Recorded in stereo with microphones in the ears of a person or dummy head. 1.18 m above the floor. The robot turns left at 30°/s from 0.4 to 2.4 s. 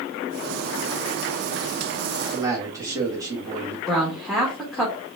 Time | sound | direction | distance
2.3 | a man speaking | 25° right (ahead or behind) | 1.4 m
3.9 | a woman speaking | 5° right (ahead or behind) | 1.2 m